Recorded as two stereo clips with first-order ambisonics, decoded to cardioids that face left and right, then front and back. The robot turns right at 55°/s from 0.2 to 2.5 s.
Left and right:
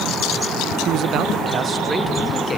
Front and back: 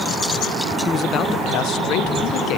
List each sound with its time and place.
0.8 s a man speaking: 70° right, 0.7 m; by 2.6 s 20° left, 0.7 m